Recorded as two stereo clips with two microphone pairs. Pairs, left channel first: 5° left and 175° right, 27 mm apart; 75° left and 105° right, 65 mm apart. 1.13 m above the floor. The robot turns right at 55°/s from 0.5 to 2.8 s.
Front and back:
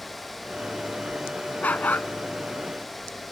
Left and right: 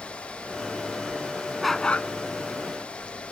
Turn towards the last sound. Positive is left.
turn(degrees=50)